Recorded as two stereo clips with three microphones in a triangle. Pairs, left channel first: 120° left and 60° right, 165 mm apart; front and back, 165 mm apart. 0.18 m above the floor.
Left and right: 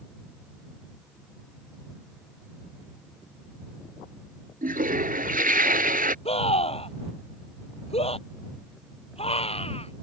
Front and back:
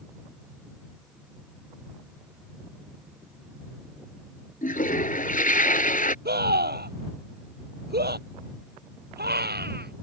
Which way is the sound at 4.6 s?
30° right.